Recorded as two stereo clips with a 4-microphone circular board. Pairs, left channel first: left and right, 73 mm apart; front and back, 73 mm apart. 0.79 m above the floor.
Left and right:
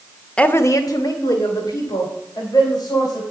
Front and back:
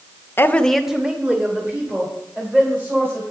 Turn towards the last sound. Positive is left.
turn(degrees=120)